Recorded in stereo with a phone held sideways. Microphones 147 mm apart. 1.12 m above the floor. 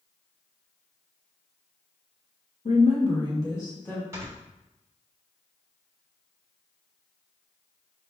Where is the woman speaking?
60° left (ahead or behind), 1.1 m; by 4.0 s 15° left (ahead or behind), 1.9 m.